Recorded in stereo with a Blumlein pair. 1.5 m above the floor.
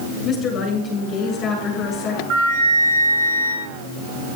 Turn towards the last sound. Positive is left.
turn(degrees=-40)